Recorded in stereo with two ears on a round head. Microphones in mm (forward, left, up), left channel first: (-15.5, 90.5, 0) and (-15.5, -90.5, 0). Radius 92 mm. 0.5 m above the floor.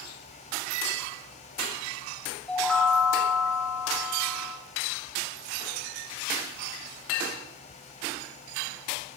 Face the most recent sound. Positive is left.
turn(degrees=5)  # may be behind; listen again after turning